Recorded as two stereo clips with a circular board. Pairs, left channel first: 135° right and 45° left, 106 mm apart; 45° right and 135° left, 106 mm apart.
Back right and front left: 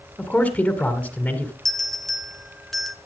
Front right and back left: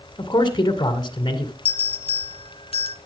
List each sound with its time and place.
0.2 s a man speaking: 60° right, 2.0 m
1.6 s a bell: 50° right, 1.0 m